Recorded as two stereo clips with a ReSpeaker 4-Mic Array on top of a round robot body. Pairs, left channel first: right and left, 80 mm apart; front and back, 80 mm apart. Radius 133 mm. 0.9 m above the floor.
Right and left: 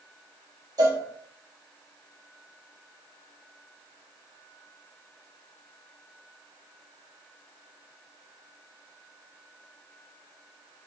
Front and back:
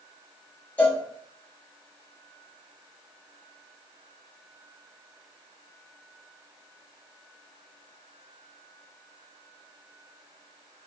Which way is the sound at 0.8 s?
65° left.